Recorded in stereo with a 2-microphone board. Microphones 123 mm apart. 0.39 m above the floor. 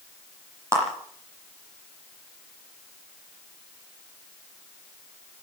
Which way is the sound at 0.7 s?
25° right (ahead or behind).